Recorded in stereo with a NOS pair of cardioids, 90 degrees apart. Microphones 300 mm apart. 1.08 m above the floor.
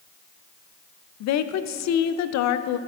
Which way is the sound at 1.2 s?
65° left.